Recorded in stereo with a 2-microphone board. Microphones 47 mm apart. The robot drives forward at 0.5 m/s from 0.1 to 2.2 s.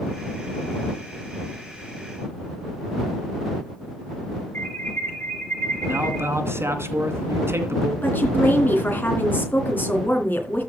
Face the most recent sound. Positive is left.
turn(degrees=40)  # may be behind; listen again after turning